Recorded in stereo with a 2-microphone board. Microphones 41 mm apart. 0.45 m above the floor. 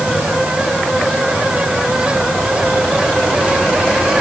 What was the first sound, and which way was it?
Only background noise.